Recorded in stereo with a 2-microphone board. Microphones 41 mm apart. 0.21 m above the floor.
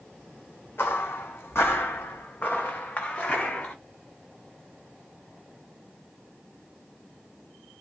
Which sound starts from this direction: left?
Footsteps, at 0.8 s.